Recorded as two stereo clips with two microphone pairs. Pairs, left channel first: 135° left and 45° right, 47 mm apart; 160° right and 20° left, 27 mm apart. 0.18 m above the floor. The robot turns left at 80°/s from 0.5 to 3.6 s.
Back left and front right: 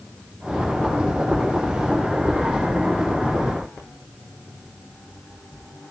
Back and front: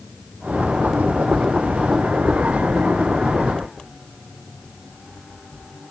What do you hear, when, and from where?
Only background noise.